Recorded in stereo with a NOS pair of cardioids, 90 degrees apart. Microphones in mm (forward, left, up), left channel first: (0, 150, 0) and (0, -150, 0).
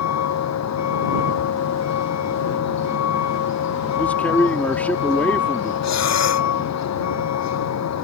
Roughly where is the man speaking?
Ahead.